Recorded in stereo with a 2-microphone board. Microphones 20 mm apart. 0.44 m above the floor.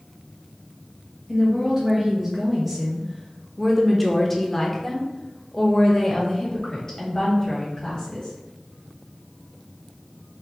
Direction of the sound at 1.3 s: 15° right (ahead or behind).